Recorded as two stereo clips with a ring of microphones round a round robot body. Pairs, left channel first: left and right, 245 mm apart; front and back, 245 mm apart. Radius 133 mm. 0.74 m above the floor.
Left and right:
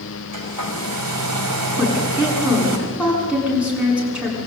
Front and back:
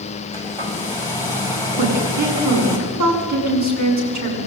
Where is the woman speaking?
175° right, 8.5 m.